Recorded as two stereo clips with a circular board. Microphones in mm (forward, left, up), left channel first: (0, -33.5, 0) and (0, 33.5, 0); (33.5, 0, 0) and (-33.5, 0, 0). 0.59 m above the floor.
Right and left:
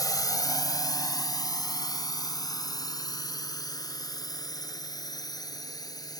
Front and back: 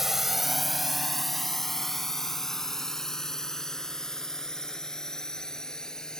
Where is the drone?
95° right; by 6.2 s 80° right.